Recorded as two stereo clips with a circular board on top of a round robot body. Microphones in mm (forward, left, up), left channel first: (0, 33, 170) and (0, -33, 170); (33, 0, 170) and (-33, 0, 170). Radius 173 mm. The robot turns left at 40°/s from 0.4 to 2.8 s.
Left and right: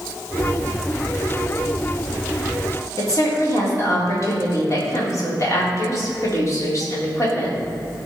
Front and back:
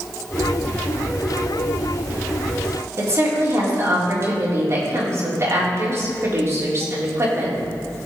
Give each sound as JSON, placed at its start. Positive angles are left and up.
{"t": 3.0, "sound": "a woman speaking", "azimuth_deg": 135, "distance_m": 3.5}